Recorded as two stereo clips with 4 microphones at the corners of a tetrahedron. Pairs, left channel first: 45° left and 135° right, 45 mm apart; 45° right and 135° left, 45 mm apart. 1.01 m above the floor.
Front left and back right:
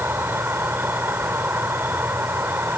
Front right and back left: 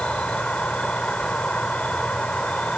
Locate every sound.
0.0 s an insect: 110° right